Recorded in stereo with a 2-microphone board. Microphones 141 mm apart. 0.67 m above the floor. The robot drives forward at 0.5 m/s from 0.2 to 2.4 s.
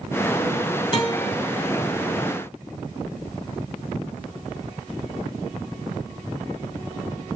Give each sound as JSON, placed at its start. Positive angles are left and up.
{"t": 0.9, "sound": "a guitar", "side_deg": 40, "distance_m": 4.0}